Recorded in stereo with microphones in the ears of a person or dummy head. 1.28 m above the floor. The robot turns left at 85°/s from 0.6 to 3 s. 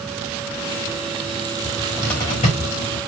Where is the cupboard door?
30° right (ahead or behind), 1.6 m; by 3.0 s 85° left, 1.6 m.